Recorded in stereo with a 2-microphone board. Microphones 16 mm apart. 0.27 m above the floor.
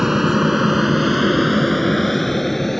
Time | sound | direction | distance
0.0 | an aircraft | 20° right (ahead or behind) | ?